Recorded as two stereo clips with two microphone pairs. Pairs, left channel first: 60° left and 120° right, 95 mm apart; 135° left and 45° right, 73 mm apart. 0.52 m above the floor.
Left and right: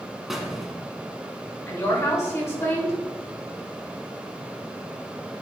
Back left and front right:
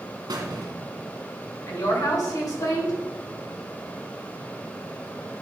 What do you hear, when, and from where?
0.3 s a squeak: 35° right, 1.3 m
1.7 s a woman speaking: 115° left, 2.5 m